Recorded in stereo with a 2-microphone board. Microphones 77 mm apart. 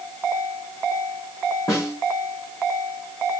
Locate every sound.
1.7 s a snare drum: 55° left (ahead or behind), 5.5 m